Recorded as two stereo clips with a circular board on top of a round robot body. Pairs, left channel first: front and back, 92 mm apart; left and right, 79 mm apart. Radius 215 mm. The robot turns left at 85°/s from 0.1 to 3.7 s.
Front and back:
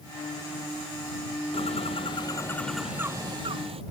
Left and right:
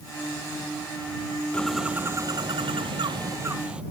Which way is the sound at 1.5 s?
15° left.